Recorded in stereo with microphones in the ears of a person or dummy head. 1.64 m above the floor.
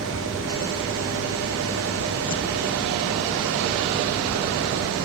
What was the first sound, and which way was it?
A fan, 70° right (ahead or behind).